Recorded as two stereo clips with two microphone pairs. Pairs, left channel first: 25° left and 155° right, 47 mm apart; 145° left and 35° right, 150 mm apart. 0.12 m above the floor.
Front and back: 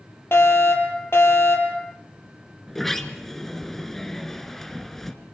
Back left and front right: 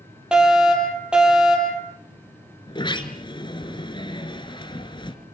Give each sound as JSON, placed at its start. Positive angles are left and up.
{"t": 0.3, "sound": "a fire alarm", "azimuth_deg": 50, "distance_m": 5.5}
{"t": 2.7, "sound": "a sliding door", "azimuth_deg": 110, "distance_m": 1.7}